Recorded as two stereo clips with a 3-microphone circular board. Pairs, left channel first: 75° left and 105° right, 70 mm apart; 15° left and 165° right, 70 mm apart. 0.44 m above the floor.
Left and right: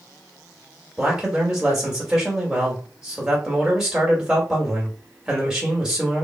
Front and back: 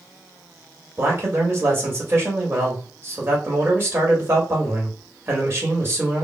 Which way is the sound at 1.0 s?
Straight behind.